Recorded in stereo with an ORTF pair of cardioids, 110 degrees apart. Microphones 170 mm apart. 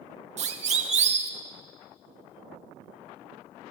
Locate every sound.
0.4 s a siren: 40° right, 2.5 m